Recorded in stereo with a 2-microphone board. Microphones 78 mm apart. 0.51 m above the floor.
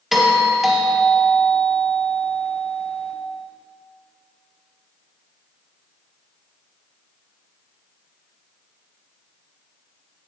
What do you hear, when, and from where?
0.1 s a doorbell: 5° right (ahead or behind), 1.3 m